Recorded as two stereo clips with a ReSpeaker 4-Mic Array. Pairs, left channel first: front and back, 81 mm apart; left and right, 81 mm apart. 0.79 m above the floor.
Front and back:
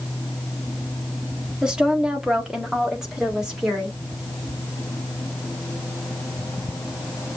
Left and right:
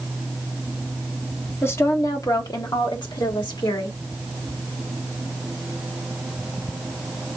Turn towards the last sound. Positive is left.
turn(degrees=95)